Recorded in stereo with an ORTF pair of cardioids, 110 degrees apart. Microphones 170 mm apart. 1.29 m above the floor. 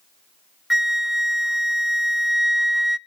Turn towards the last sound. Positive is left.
turn(degrees=0)